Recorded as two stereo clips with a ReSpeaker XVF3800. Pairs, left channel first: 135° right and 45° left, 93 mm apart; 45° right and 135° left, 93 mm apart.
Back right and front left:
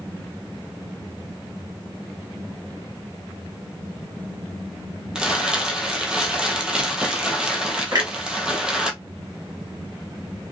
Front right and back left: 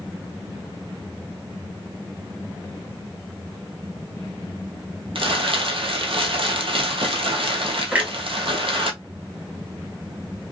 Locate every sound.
5.2 s crumpling: 125° left, 1.2 m
7.9 s a clunk: 70° left, 1.8 m